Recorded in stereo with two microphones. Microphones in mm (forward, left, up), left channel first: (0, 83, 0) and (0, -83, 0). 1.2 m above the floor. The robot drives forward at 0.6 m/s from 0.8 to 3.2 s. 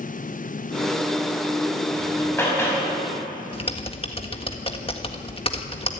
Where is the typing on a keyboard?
35° left (ahead or behind), 1.5 m.